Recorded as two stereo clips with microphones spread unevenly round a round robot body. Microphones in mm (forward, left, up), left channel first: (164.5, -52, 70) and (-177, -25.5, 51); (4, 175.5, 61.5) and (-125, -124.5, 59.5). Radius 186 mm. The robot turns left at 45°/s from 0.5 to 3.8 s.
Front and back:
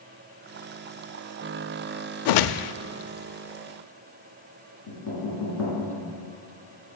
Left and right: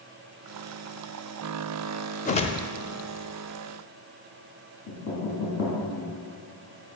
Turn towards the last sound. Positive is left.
turn(degrees=40)